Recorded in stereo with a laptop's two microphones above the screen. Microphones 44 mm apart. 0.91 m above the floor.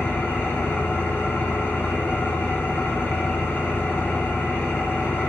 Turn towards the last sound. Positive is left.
turn(degrees=65)  # may be behind; listen again after turning